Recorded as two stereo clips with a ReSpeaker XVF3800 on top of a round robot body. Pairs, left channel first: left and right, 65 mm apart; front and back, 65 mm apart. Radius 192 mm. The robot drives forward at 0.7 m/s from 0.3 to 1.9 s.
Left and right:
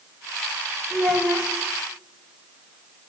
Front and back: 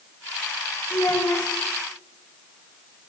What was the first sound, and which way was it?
A child speaking, 20° left.